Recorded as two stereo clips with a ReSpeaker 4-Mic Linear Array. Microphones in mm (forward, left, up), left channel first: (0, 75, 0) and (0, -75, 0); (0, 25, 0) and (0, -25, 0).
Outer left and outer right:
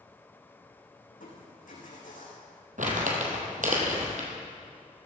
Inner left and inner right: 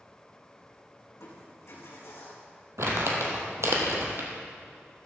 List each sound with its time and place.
1.1 s crushing: 70° left (ahead or behind), 4.5 m
2.8 s crumpling: 65° right (ahead or behind), 2.5 m